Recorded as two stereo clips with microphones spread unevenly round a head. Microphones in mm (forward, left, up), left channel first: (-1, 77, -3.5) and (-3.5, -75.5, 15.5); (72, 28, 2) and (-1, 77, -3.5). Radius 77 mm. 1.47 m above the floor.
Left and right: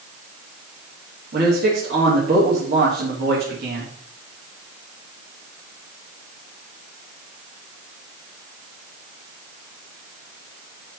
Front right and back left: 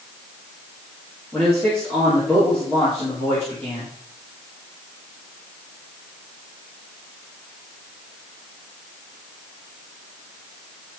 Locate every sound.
1.3 s a man speaking: 120° right, 3.5 m